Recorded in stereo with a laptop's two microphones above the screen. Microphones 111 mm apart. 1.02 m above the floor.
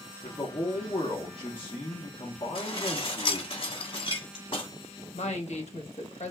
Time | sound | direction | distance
0.2 | a man speaking | 45° left (ahead or behind) | 0.8 m
2.5 | dishes clattering | 50° left (ahead or behind) | 1.4 m
5.1 | a woman speaking | 80° left | 1.0 m